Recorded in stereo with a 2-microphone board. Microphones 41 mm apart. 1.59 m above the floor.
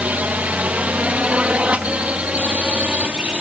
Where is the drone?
35° right (ahead or behind); by 3.4 s 30° right (ahead or behind).